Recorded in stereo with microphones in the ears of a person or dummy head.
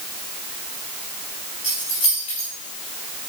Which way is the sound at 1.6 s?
35° left (ahead or behind).